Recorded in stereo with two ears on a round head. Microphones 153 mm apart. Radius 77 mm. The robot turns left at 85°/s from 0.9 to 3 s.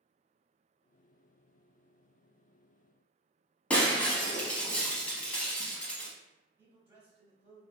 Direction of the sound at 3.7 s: 5° left (ahead or behind).